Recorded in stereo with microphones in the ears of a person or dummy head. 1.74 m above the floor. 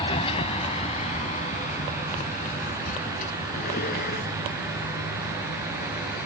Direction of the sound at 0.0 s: 30° left (ahead or behind).